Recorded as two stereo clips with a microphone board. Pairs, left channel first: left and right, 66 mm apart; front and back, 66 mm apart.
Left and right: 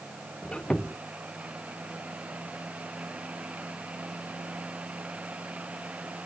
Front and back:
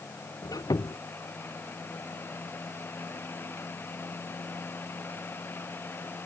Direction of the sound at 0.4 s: 15° left.